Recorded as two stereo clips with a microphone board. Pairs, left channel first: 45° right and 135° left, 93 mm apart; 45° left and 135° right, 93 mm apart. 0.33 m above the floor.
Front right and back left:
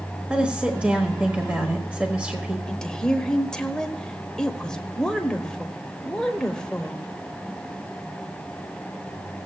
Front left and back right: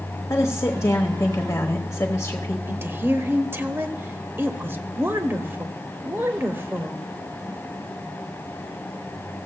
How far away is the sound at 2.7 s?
About 0.9 m.